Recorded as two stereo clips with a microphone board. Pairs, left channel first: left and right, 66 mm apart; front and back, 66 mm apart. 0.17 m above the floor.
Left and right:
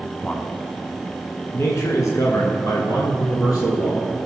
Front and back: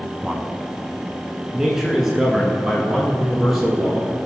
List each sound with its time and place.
0.2 s a man speaking: 120° left, 1.0 m; by 4.1 s 95° left, 3 m